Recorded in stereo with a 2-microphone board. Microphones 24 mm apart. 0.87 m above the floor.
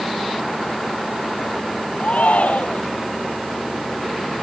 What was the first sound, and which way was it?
A shout, 90° left.